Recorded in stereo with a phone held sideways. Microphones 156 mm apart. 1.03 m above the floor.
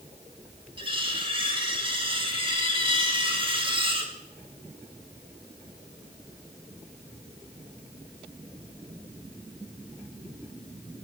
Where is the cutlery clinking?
35° right (ahead or behind), 2.5 m.